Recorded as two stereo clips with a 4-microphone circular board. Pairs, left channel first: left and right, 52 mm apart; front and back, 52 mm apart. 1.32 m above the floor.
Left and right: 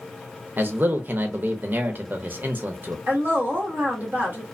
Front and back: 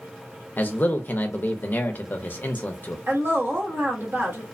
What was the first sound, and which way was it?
A man speaking, 45° right.